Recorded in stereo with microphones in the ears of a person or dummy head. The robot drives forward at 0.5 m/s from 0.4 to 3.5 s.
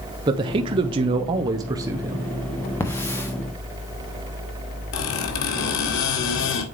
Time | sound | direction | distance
0.3 | a man speaking | 25° right (ahead or behind) | 0.6 m
2.8 | a hiss | 10° left (ahead or behind) | 1.1 m
4.9 | a squeak | 70° left (ahead or behind) | 1.7 m